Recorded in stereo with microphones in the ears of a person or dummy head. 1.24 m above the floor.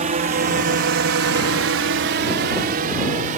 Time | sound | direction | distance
0.0 | a drone | 35° right (ahead or behind) | ?